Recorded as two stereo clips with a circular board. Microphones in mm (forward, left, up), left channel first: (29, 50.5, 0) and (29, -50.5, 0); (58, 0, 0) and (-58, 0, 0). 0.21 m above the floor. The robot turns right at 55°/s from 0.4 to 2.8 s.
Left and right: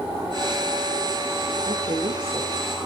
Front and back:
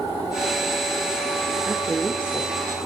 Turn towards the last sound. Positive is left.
turn(degrees=-45)